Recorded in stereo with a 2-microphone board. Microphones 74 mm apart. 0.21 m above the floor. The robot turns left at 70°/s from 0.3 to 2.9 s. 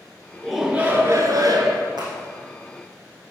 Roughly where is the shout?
Ahead.